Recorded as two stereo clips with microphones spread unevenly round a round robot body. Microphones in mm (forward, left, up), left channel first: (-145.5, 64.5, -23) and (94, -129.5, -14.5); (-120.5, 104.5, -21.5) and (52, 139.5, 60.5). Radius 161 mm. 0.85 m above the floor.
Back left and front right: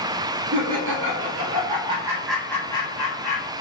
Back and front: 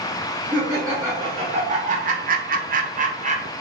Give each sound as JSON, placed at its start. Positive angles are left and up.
{"t": 0.5, "sound": "laughter", "azimuth_deg": -85, "distance_m": 1.0}